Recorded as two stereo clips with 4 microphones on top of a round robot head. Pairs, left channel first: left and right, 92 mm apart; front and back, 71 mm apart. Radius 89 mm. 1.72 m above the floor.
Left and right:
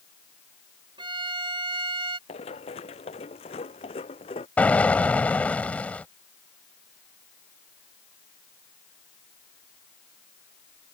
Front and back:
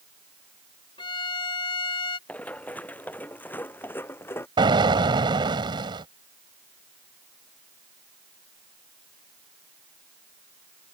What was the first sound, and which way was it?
A violin, 40° right.